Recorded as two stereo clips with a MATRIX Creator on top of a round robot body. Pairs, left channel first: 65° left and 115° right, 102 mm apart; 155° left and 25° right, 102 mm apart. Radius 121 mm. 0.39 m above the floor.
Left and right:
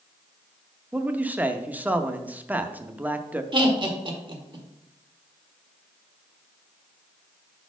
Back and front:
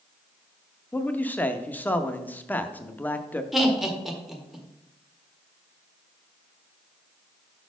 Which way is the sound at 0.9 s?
160° right.